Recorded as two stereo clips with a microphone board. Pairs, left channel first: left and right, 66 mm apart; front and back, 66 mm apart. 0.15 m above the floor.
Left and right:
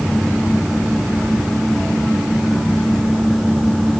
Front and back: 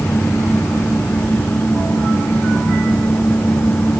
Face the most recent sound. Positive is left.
No sound to turn to.